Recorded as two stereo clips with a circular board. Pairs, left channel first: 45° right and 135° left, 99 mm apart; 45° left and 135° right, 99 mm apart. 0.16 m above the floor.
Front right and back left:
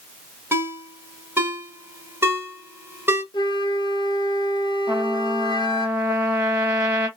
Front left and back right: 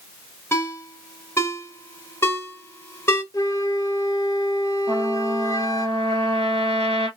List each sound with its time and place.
0.5 s a ringtone: 90° left, 0.8 m
3.3 s a flute: 5° right, 0.6 m
4.9 s a trumpet: 150° right, 1.1 m